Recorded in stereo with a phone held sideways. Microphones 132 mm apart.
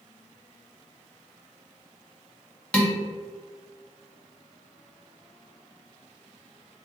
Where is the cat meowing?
I don't hear a cat meowing.